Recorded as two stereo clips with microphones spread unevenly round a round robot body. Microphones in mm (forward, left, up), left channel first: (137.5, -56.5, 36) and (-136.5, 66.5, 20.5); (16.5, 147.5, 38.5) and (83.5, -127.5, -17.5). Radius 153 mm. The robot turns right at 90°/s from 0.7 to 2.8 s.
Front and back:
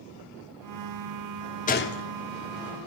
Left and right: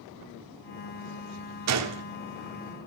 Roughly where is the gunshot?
Right.